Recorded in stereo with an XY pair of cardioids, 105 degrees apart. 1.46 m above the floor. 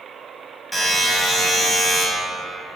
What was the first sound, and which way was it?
A buzzer, 5° left.